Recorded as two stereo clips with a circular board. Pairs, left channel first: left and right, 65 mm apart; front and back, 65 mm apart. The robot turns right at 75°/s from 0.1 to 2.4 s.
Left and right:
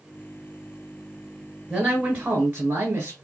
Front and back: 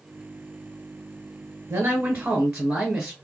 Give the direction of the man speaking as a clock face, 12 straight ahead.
6 o'clock.